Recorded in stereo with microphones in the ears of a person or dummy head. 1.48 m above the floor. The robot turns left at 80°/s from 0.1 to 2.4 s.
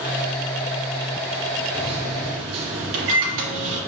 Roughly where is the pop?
No pop in this recording.